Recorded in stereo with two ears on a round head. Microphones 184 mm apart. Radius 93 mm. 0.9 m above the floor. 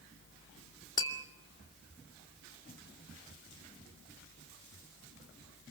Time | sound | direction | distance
1.0 | tapping | 20° left (ahead or behind) | 2.5 m